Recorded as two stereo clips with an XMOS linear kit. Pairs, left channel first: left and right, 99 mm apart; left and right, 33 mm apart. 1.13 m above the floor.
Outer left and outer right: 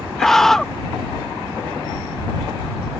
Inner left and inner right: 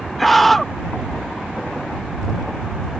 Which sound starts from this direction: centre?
A scream, at 0.2 s.